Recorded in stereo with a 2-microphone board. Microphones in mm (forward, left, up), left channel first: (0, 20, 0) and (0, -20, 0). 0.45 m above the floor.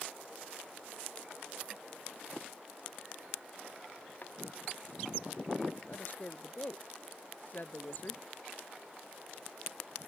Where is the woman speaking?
45° left (ahead or behind).